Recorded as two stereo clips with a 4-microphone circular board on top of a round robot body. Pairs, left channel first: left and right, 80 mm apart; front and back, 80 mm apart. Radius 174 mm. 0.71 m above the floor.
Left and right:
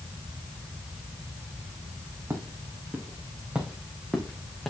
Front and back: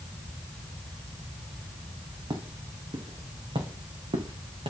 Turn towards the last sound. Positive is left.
turn(degrees=180)